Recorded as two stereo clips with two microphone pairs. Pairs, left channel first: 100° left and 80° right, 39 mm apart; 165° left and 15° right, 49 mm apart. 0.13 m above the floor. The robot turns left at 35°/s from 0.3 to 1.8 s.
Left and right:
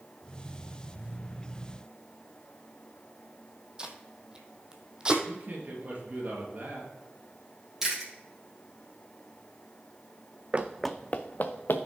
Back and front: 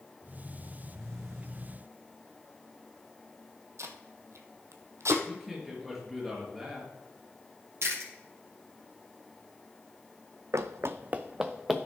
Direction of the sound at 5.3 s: 105° right.